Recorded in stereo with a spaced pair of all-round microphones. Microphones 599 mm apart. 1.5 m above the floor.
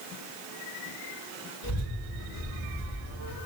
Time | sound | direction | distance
1.6 | a child speaking | 60° left (ahead or behind) | 1.7 m